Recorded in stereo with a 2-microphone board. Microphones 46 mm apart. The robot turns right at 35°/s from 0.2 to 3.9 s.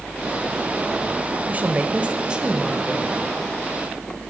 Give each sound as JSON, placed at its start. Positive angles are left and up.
{"t": 1.5, "sound": "a woman speaking", "azimuth_deg": -60, "distance_m": 1.1}